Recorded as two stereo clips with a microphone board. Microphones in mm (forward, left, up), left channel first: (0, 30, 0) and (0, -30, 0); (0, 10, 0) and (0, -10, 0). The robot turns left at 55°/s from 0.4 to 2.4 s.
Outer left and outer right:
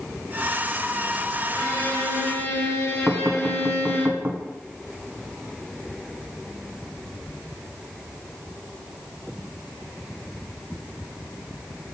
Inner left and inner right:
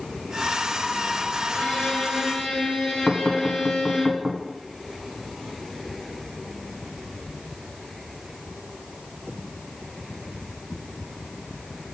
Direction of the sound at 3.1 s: 30° right (ahead or behind).